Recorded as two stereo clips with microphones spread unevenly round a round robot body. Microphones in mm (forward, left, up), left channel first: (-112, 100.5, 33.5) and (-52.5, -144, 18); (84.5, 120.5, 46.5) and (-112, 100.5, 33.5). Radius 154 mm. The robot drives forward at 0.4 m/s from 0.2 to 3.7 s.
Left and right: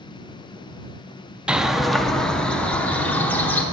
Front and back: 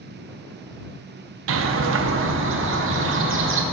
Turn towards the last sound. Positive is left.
turn(degrees=-175)